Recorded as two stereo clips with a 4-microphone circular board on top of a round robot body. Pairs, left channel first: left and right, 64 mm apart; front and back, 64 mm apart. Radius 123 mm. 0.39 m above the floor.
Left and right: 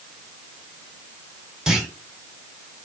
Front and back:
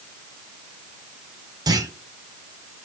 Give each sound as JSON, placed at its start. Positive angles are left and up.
{"t": 1.7, "sound": "a clunk", "azimuth_deg": -175, "distance_m": 2.0}